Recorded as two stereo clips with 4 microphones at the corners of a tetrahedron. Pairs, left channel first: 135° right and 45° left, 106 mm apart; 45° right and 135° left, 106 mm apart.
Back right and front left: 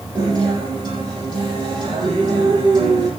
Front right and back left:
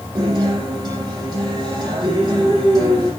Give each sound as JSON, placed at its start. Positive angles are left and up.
{"t": 0.1, "sound": "a guitar", "azimuth_deg": 85, "distance_m": 7.0}